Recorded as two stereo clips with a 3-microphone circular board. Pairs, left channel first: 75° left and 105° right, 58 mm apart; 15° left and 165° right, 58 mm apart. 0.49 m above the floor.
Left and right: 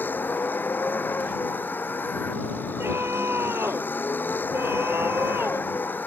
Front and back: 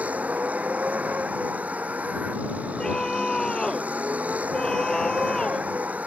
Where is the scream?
65° right.